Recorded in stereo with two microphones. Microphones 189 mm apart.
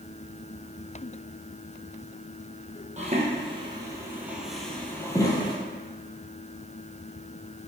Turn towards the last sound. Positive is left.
turn(degrees=25)  # may be behind; listen again after turning